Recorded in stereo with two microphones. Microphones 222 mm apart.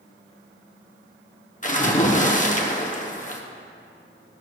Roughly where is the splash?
Left.